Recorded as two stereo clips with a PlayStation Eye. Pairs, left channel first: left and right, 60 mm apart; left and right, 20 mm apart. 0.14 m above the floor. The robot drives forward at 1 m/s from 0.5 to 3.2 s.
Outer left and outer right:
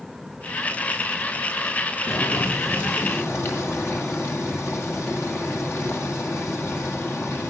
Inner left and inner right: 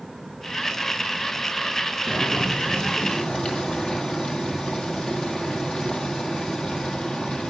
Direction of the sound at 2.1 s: 50° left (ahead or behind).